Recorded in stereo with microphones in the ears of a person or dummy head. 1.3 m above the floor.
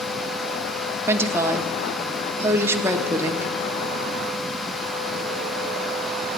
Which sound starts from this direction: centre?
A woman speaking, at 1.1 s.